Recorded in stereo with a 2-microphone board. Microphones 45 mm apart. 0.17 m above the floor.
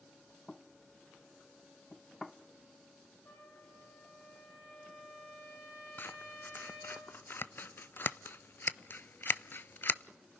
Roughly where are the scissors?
Left.